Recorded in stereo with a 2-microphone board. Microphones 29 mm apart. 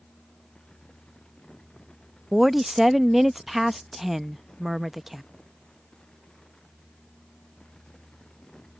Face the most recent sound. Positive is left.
turn(degrees=-10)  # may be behind; listen again after turning